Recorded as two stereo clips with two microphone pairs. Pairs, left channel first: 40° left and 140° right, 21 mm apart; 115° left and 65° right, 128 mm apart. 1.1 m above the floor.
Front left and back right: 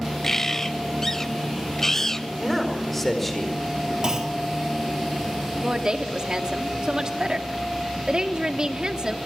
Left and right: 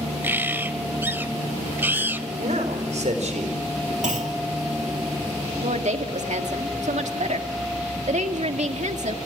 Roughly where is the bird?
Ahead.